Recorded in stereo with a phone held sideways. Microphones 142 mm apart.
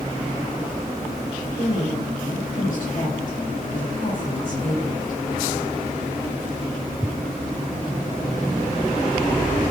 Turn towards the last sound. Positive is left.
turn(degrees=65)  # may be behind; listen again after turning